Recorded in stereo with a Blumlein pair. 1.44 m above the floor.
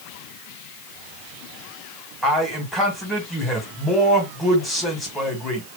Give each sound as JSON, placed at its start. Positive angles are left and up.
{"t": 2.2, "sound": "a man speaking", "azimuth_deg": 0, "distance_m": 2.0}